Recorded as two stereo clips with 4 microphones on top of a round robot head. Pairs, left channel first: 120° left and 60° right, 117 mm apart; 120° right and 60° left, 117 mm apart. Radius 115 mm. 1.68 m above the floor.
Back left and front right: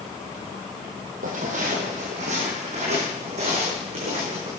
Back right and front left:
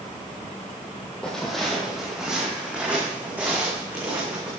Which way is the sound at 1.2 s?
40° right.